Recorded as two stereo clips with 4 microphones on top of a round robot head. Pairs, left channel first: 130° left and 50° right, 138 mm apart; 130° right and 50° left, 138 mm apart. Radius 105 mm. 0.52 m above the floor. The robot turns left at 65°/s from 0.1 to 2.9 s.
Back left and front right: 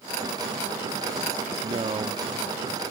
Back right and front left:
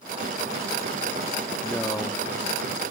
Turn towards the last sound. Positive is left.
turn(degrees=-135)